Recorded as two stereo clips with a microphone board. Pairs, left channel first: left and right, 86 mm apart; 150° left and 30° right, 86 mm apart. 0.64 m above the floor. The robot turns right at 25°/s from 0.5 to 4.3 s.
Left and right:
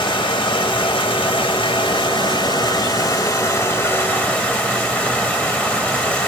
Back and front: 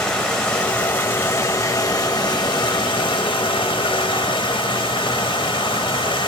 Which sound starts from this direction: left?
Running water, at 0.0 s.